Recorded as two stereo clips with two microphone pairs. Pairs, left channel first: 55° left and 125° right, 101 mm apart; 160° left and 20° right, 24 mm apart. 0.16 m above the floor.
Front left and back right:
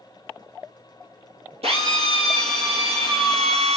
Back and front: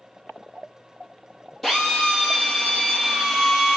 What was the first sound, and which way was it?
A drill, 125° right.